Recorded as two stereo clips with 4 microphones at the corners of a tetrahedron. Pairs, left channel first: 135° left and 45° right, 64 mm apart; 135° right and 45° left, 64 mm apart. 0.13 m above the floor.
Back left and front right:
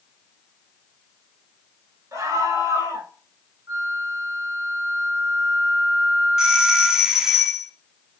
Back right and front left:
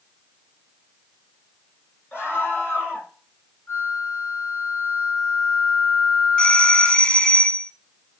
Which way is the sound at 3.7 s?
80° right.